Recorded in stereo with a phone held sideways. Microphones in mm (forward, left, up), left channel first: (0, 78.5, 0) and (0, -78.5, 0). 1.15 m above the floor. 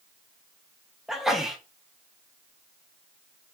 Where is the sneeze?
Centre (ahead or behind), 1.0 m.